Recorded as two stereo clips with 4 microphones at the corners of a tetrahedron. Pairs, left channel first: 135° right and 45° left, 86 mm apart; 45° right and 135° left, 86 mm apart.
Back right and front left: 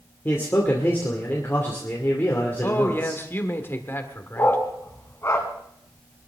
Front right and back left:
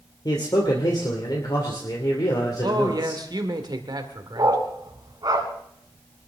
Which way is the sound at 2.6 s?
165° left.